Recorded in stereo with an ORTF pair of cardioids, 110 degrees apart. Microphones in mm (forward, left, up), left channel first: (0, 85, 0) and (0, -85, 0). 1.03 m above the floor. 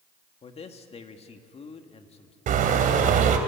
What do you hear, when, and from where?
0.4 s a man speaking: 40° left, 2 m
2.5 s a car horn: 55° right, 2.5 m